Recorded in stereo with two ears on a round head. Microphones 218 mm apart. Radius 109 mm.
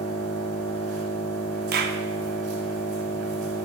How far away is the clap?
About 0.5 m.